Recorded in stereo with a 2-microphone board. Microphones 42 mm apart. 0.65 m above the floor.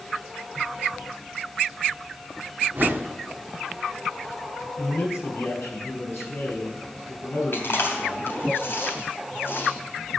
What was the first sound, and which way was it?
A whoosh, 50° right (ahead or behind).